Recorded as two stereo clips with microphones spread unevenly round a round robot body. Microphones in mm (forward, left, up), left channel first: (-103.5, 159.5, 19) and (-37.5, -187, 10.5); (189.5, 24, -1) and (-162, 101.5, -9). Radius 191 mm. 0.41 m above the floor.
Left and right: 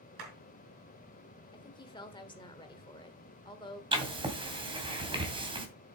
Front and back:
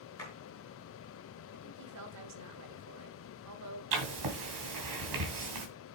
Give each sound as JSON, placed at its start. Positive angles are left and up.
{"t": 0.2, "sound": "a clap", "azimuth_deg": -95, "distance_m": 5.5}
{"t": 1.5, "sound": "a woman speaking", "azimuth_deg": 175, "distance_m": 1.3}
{"t": 3.9, "sound": "writing", "azimuth_deg": -155, "distance_m": 2.5}